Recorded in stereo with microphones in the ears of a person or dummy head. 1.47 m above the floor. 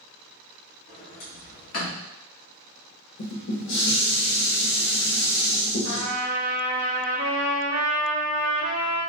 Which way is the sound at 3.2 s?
70° left (ahead or behind).